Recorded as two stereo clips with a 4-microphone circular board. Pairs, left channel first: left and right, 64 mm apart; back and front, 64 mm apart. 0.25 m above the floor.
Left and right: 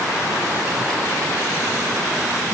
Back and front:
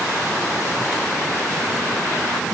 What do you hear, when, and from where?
Only background noise.